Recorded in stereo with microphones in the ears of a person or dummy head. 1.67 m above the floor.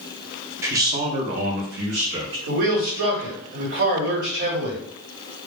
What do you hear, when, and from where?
0.6 s a man speaking: 15° right (ahead or behind), 0.6 m; by 2.4 s 60° right (ahead or behind), 1.0 m
2.5 s a man speaking: 55° right (ahead or behind), 1.2 m